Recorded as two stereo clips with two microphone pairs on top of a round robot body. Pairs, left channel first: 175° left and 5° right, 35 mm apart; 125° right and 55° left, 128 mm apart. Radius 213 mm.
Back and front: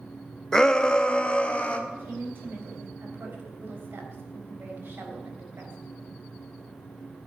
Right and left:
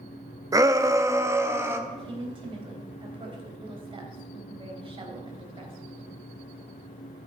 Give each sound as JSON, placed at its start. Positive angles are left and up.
{"t": 0.5, "sound": "a shout", "azimuth_deg": 110, "distance_m": 1.4}
{"t": 1.9, "sound": "a woman speaking", "azimuth_deg": 10, "distance_m": 4.0}